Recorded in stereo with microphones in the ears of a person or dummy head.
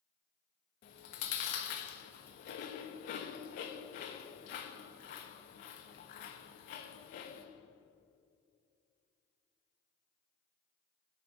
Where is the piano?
I don't hear a piano.